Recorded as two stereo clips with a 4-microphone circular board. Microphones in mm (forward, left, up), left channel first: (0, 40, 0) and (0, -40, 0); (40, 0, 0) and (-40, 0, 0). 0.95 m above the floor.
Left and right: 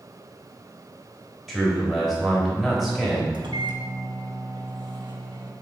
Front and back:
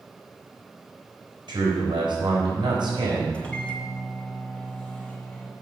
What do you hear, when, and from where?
1.5 s a man speaking: 175° right, 4 m
3.3 s a microwave: 75° right, 1.4 m